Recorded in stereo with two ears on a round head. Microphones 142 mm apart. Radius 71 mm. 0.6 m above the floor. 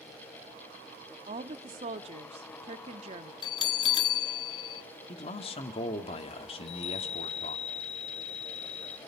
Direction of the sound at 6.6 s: 40° left (ahead or behind).